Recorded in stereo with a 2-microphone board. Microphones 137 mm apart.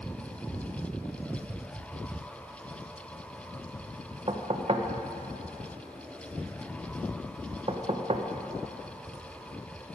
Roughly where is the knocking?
Right.